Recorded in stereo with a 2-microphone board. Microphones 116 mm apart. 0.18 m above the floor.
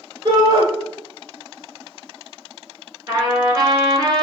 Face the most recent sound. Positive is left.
turn(degrees=-35)  # may be behind; listen again after turning